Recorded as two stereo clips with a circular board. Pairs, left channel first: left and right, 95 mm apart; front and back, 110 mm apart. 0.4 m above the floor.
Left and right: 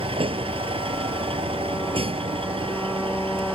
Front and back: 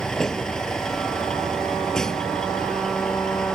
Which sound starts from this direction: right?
A vehicle, at 0.0 s.